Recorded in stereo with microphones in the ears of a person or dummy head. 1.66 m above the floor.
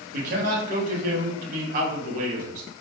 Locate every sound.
0.1 s a man speaking: 45° right (ahead or behind), 0.8 m